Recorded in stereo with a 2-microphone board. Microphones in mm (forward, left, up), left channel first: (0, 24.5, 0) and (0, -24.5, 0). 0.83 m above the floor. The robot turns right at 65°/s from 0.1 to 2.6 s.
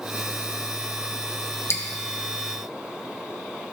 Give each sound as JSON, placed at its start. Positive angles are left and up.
{"t": 1.7, "sound": "dripping", "side_deg": 55, "distance_m": 0.9}